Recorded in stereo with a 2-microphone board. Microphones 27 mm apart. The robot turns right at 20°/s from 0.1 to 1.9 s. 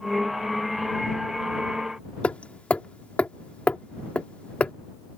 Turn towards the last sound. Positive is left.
turn(degrees=50)  # may be behind; listen again after turning